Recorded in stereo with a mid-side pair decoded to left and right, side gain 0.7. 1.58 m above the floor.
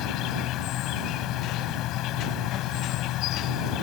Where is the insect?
60° left.